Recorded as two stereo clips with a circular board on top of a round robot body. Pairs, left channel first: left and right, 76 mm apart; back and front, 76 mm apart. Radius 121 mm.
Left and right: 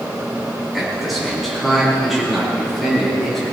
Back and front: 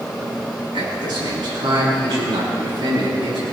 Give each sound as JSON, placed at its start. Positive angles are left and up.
{"t": 0.7, "sound": "a man speaking", "azimuth_deg": 0, "distance_m": 5.0}